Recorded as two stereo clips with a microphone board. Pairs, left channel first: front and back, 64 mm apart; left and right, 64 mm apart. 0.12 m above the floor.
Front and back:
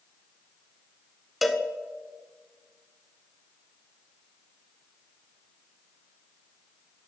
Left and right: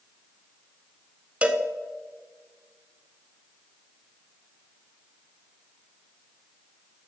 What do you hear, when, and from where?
1.4 s a cowbell: 95° right, 0.6 m